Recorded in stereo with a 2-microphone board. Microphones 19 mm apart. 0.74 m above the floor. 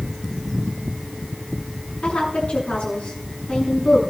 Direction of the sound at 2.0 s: 80° left.